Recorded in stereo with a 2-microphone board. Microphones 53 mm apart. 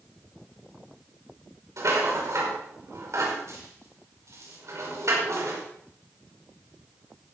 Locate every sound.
1.8 s a rattle: 65° right (ahead or behind), 5 m